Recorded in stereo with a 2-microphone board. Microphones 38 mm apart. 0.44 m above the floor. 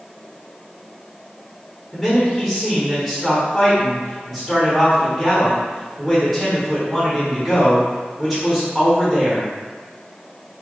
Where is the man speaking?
Centre (ahead or behind), 1.3 m.